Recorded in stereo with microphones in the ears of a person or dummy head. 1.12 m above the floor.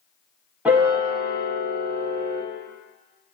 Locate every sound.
0.7 s a piano: 5° right (ahead or behind), 0.8 m